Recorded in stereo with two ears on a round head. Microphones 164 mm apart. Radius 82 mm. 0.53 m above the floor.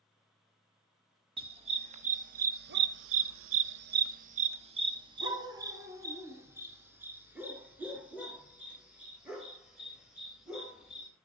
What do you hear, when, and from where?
1.4 s a dog barking: 30° right (ahead or behind), 1.6 m; by 11.1 s 5° right (ahead or behind), 5.5 m